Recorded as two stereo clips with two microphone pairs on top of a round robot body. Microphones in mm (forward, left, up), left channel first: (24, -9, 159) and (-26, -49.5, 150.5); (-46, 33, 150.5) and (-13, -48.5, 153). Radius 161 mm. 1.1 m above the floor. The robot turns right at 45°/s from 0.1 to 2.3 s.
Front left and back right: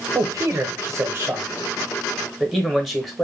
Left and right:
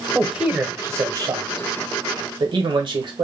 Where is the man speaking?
155° right, 1.1 m; by 3.2 s 60° right, 1.1 m.